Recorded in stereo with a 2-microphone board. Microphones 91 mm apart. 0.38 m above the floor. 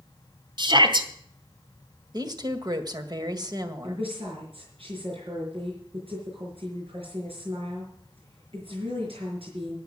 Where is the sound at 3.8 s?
80° right, 5 m.